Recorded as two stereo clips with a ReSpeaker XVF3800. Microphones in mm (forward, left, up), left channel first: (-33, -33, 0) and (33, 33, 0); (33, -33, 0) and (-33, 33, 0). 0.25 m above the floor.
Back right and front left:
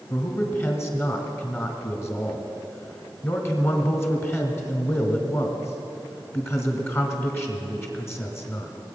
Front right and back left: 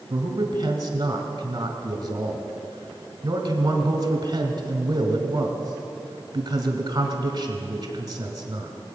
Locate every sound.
0.1 s a man speaking: 165° left, 1.9 m